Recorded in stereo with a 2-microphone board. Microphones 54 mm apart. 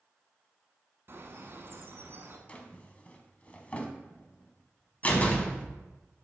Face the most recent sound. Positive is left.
turn(degrees=30)  # may be behind; listen again after turning